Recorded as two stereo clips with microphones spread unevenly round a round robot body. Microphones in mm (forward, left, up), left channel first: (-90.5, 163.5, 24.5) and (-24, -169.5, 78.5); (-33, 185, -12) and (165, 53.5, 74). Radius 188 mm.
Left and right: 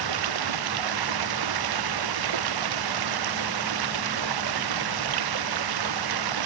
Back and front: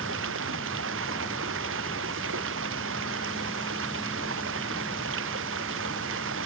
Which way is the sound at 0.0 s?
90° right.